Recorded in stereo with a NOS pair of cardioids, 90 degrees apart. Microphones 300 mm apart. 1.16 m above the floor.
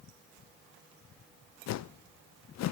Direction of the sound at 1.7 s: 70° left.